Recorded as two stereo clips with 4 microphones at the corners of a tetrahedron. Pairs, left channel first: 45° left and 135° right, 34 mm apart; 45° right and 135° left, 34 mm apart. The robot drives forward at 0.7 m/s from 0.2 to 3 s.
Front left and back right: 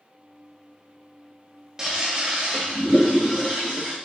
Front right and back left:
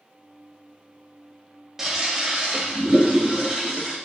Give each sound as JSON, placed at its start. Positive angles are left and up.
{"t": 1.8, "sound": "a toilet flushing", "azimuth_deg": -170, "distance_m": 0.8}